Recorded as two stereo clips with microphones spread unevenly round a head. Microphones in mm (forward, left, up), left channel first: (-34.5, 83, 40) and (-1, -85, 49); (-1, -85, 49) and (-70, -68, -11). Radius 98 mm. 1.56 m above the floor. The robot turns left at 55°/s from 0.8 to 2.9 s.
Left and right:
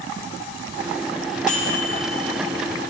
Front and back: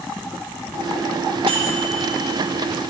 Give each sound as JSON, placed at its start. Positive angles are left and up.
{"t": 1.5, "sound": "a microwave", "azimuth_deg": 140, "distance_m": 1.2}